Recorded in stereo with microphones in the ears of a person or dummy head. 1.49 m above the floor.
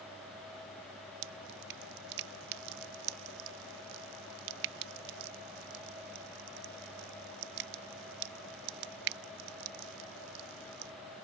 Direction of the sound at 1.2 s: 55° right (ahead or behind).